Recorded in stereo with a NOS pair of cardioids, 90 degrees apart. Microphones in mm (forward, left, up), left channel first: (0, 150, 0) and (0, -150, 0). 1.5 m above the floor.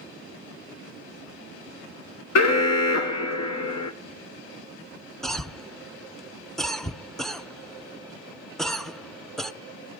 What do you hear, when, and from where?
2.4 s an alarm: 60° left, 1.0 m
5.2 s a cough: straight ahead, 0.6 m